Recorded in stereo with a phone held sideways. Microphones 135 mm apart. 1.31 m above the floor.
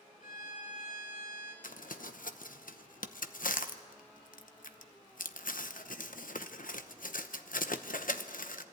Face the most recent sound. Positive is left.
turn(degrees=85)